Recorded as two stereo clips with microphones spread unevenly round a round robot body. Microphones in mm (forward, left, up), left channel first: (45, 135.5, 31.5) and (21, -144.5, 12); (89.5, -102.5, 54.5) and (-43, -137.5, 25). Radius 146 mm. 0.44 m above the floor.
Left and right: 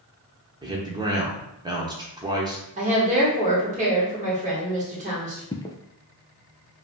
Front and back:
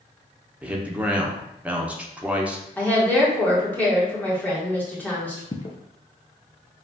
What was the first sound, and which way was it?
A man speaking, 135° right.